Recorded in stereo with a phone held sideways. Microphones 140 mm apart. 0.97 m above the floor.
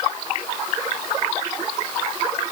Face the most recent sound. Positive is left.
No sound to turn to.